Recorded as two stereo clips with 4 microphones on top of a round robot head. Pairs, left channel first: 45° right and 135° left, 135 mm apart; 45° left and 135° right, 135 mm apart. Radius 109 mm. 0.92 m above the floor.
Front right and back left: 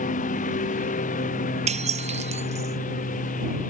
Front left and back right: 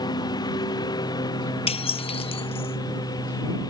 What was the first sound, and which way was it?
A lawn mower, 15° right.